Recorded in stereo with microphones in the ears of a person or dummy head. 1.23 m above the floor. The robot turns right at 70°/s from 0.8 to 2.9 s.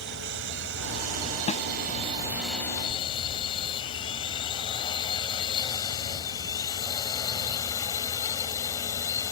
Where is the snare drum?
35° left (ahead or behind); by 1.6 s 45° left (ahead or behind).